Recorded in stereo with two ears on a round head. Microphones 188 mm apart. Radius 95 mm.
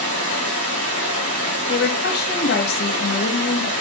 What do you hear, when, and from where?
0.0 s running water: 85° right, 3 m
1.7 s a woman speaking: 50° left (ahead or behind), 1.0 m